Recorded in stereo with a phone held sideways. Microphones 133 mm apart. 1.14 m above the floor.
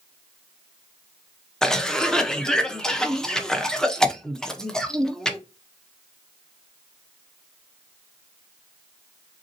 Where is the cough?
5° left (ahead or behind), 0.6 m.